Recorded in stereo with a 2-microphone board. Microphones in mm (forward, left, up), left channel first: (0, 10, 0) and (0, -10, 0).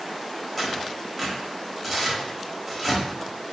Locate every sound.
0.6 s tearing paper: centre (ahead or behind), 0.9 m